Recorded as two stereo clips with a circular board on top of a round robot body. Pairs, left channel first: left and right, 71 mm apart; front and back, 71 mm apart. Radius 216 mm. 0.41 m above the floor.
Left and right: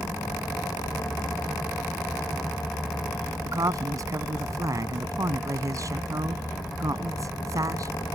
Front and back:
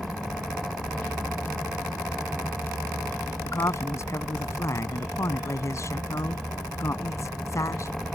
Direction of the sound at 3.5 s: 50° right.